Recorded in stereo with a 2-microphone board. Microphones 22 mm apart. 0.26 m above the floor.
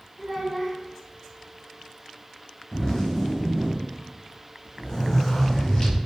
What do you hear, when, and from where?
0.2 s a child speaking: 10° right (ahead or behind), 0.8 m
2.7 s a zipper: 35° left (ahead or behind), 1.4 m